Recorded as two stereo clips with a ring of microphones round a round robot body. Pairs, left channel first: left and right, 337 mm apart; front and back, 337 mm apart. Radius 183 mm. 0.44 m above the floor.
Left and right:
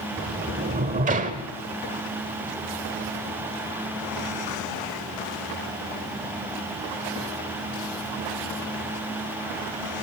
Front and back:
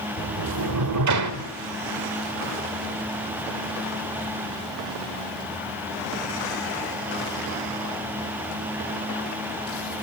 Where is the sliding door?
155° right, 1.3 m.